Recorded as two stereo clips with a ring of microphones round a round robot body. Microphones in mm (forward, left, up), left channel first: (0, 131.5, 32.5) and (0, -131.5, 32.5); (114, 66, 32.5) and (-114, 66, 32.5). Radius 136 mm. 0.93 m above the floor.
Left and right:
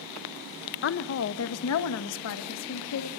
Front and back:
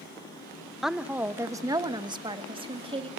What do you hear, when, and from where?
0.8 s a woman speaking: 90° left, 1.1 m; by 3.1 s 115° left, 2.5 m